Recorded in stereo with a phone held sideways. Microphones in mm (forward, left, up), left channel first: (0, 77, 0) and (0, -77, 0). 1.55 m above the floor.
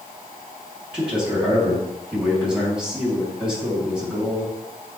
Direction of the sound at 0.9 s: 5° right (ahead or behind).